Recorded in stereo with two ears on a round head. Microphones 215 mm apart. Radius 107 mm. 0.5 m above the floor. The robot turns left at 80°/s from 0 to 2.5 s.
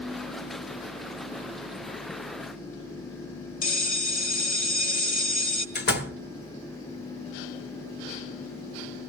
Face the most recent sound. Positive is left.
turn(degrees=45)  # may be behind; listen again after turning